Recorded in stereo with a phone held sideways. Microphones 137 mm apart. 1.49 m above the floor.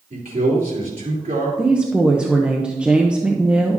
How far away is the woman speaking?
About 0.8 m.